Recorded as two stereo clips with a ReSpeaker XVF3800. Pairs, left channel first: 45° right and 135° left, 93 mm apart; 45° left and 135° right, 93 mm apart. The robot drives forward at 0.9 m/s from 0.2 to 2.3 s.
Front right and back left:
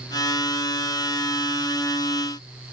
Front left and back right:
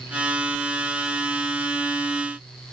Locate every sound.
Only background noise.